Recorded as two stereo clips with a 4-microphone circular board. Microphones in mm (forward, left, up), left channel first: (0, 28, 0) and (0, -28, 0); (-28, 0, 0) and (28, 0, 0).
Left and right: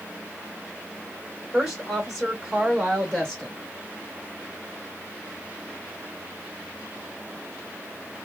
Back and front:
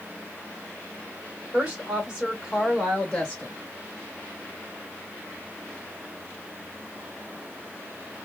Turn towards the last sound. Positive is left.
turn(degrees=170)